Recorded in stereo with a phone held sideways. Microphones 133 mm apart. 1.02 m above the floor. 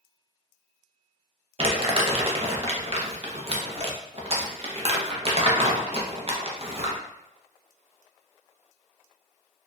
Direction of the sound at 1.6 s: 45° right (ahead or behind).